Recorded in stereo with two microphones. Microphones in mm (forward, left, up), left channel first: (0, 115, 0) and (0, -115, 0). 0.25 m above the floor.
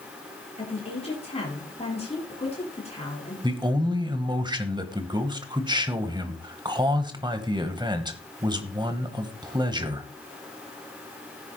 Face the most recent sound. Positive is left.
turn(degrees=-20)  # may be behind; listen again after turning